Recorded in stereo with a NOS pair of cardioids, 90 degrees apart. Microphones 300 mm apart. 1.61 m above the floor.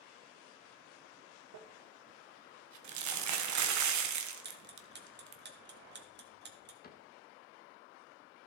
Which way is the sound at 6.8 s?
30° left.